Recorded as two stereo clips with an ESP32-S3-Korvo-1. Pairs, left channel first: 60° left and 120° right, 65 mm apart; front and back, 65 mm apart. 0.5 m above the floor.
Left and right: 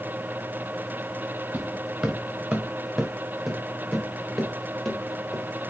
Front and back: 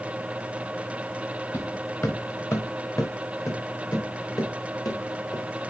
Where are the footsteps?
55° right, 1.9 m; by 5.4 s 25° right, 4 m.